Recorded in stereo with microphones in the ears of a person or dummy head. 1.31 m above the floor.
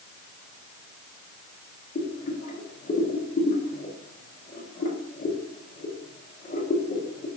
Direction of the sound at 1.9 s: 40° left (ahead or behind).